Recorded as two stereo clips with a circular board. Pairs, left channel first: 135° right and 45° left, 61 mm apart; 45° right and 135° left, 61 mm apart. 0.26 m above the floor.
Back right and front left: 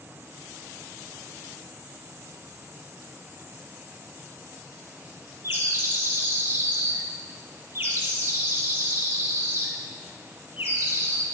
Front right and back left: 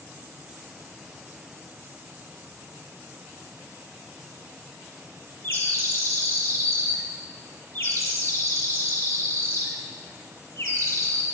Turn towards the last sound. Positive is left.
turn(degrees=5)